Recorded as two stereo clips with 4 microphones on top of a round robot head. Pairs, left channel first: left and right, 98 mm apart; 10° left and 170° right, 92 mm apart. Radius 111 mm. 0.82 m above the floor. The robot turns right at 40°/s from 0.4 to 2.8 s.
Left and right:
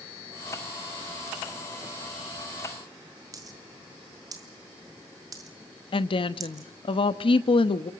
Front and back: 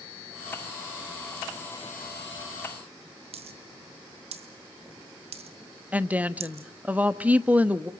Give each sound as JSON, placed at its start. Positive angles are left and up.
{"t": 3.3, "sound": "a dropped coin", "azimuth_deg": -150, "distance_m": 1.2}
{"t": 5.9, "sound": "a woman speaking", "azimuth_deg": 115, "distance_m": 1.1}